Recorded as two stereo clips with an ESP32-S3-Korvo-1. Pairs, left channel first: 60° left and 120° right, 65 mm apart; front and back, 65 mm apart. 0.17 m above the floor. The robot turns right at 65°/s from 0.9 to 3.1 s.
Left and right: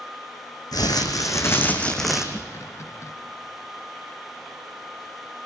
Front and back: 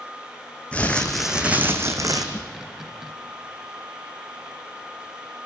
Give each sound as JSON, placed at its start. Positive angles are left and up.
{"t": 0.7, "sound": "crumpling", "azimuth_deg": 70, "distance_m": 2.5}
{"t": 2.4, "sound": "a snare drum", "azimuth_deg": -35, "distance_m": 0.8}